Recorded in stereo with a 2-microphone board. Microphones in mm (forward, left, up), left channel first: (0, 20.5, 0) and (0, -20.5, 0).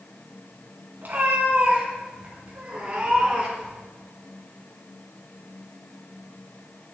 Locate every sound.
1.0 s a cat meowing: 50° right (ahead or behind), 4 m; by 3.8 s 20° right (ahead or behind), 4.5 m